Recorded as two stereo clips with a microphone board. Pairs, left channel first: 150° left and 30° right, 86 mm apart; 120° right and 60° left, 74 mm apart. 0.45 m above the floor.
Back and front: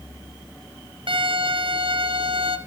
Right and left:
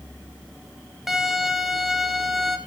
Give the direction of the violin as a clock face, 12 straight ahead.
1 o'clock.